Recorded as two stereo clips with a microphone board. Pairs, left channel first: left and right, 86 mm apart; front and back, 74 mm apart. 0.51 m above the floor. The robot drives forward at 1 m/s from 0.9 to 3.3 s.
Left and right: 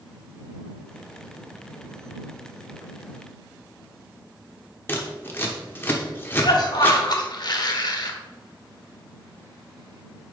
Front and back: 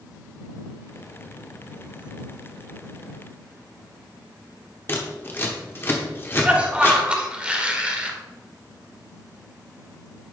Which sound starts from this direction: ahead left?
Scissors, at 4.9 s.